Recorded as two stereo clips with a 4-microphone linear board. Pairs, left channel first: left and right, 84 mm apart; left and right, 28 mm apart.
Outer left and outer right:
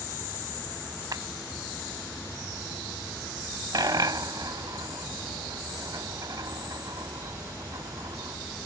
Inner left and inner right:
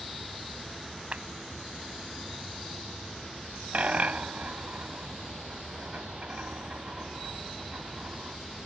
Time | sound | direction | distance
1.1 | a clap | 50° right (ahead or behind) | ?
3.7 | a dropped coin | 55° right (ahead or behind) | ?